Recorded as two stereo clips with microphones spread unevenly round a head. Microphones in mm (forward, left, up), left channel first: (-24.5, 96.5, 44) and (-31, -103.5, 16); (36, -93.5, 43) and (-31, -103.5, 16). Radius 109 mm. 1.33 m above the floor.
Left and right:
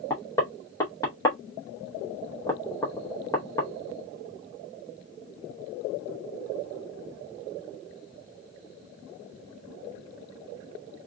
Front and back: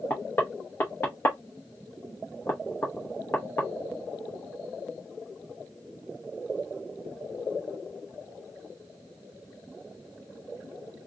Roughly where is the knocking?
Ahead left.